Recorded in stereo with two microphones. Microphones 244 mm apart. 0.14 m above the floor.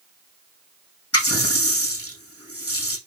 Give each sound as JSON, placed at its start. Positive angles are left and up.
{"t": 1.1, "sound": "a running tap", "side_deg": 70, "distance_m": 4.5}